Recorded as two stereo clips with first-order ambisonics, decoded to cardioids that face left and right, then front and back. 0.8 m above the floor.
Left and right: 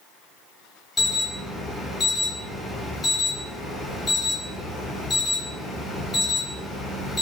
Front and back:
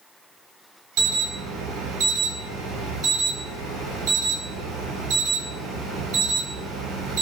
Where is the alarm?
165° left, 0.8 m.